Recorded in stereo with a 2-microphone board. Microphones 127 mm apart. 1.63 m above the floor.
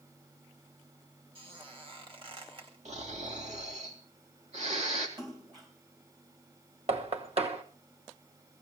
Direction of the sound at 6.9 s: 50° right (ahead or behind).